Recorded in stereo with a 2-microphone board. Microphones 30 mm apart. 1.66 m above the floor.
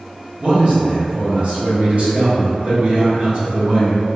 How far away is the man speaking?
About 1.3 m.